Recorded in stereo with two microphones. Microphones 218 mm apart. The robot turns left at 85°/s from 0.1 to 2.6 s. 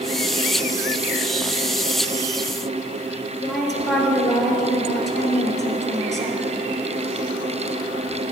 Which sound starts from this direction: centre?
A woman speaking, at 3.4 s.